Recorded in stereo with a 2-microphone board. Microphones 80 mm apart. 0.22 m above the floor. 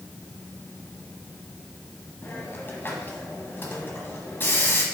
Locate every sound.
2.2 s a hiss: 30° left (ahead or behind), 1.5 m